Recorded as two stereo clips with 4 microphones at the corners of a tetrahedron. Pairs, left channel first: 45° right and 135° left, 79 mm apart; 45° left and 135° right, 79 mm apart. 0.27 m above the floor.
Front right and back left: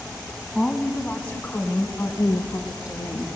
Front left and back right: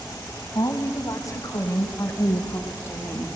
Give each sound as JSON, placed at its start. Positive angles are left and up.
{"t": 0.6, "sound": "a woman speaking", "azimuth_deg": 35, "distance_m": 1.9}